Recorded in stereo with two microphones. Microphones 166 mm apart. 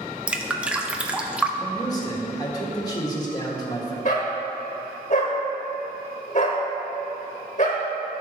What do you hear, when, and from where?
0.3 s dripping: 5° right (ahead or behind), 0.5 m
1.6 s a man speaking: 25° left (ahead or behind), 1.4 m
4.0 s a dog barking: 50° left (ahead or behind), 1.4 m